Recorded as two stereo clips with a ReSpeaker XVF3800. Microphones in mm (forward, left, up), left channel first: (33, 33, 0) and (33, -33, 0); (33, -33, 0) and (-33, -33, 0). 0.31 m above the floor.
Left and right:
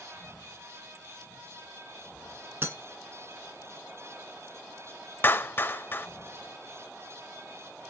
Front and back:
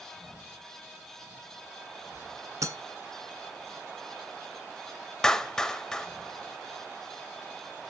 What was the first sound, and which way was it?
Breaking glass, 140° right.